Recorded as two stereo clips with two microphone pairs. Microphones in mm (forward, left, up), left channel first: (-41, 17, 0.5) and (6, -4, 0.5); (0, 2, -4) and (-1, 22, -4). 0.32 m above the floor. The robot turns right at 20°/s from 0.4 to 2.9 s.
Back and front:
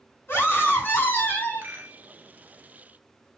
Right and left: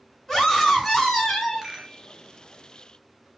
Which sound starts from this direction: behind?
A scream, at 0.3 s.